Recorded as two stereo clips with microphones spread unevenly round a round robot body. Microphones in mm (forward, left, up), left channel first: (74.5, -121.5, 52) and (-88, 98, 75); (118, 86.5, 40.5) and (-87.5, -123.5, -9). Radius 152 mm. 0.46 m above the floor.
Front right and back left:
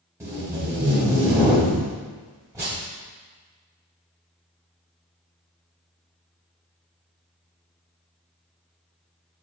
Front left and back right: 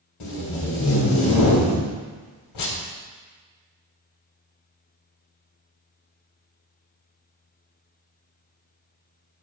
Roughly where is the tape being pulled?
Ahead left.